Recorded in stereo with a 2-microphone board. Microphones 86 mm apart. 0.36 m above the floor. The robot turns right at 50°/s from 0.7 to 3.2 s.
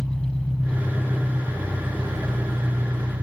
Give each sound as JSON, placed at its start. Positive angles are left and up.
{"t": 0.0, "sound": "an engine running", "azimuth_deg": 155, "distance_m": 1.5}